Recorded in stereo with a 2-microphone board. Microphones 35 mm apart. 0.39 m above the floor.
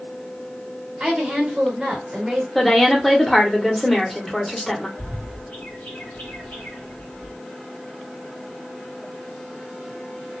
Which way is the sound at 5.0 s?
50° left (ahead or behind).